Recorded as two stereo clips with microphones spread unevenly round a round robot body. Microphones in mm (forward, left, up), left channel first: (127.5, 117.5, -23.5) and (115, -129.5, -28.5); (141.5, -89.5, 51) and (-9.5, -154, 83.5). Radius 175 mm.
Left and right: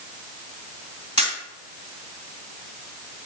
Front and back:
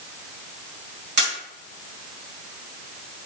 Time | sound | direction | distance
1.2 | a camera shutter | 165° left | 1.9 m